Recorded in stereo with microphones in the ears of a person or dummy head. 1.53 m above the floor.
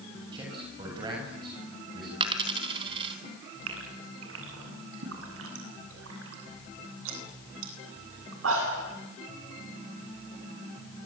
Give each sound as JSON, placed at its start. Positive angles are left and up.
{"t": 0.3, "sound": "a man speaking", "side_deg": -25, "distance_m": 8.0}
{"t": 2.2, "sound": "a dropped coin", "side_deg": -30, "distance_m": 4.0}
{"t": 3.7, "sound": "a gasp", "side_deg": -85, "distance_m": 9.0}